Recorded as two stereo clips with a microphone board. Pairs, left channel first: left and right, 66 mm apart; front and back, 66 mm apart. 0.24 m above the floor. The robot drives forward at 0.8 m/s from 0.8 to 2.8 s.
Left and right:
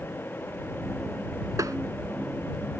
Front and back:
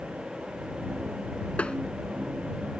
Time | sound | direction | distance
1.6 | tapping | 70° right | ?